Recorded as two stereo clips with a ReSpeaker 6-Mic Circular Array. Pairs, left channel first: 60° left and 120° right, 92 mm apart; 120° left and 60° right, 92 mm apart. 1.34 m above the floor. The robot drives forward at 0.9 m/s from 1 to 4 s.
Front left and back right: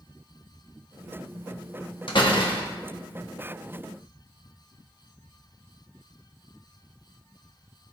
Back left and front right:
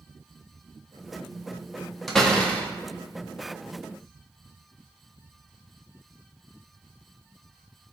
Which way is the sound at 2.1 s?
35° left.